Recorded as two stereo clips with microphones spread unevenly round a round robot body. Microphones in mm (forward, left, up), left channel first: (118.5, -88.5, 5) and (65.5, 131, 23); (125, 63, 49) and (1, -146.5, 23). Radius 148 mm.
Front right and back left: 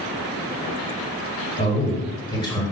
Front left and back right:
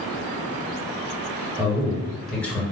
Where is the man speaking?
60° right, 1.8 m; by 2.6 s 25° right, 1.6 m.